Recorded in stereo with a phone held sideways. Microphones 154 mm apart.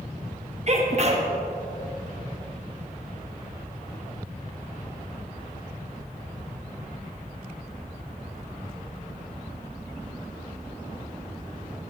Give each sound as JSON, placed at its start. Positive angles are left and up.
{"t": 0.7, "sound": "a sneeze", "side_deg": -45, "distance_m": 1.2}